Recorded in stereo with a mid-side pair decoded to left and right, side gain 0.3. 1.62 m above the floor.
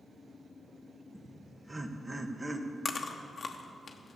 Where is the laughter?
25° right, 1.5 m.